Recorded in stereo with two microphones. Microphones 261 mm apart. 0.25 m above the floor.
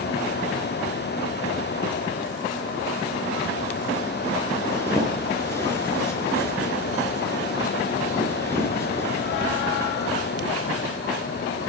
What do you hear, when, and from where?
4.7 s a zipper: 10° left (ahead or behind), 4.5 m